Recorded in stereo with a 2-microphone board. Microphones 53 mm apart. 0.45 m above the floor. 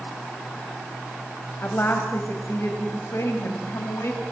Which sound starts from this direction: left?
A woman speaking, at 1.6 s.